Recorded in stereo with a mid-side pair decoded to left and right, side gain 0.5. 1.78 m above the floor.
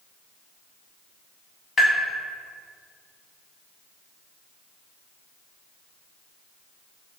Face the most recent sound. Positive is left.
turn(degrees=30)